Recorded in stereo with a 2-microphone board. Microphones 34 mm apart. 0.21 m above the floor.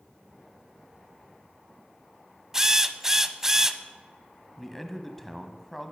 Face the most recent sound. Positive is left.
turn(degrees=5)  # may be behind; listen again after turning